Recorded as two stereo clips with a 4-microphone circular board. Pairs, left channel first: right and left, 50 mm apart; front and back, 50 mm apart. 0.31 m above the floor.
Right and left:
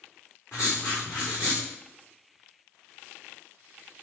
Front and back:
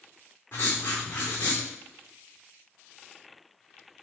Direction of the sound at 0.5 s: 50° right.